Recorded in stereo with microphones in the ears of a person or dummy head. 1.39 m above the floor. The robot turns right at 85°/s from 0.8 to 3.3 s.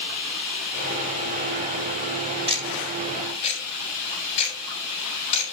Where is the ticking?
35° right (ahead or behind), 6 m; by 5.5 s 35° left (ahead or behind), 6 m.